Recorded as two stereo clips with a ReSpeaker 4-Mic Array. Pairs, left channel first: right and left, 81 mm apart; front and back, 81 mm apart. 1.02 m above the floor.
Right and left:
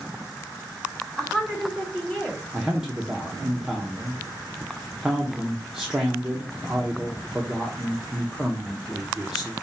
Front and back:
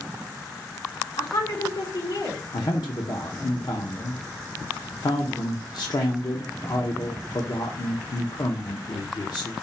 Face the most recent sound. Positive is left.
turn(degrees=5)